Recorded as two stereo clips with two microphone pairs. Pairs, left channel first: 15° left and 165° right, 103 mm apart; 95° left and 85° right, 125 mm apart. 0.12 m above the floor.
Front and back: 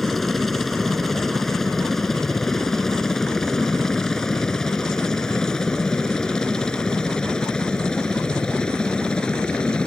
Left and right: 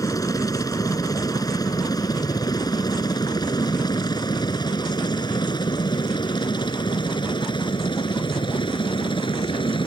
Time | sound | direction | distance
0.0 | a helicopter | 100° left | ?